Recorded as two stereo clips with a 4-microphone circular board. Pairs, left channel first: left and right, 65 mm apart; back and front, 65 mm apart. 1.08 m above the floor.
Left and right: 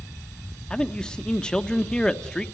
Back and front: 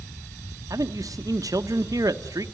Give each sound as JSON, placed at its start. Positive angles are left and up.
{"t": 0.7, "sound": "a man speaking", "azimuth_deg": 15, "distance_m": 1.1}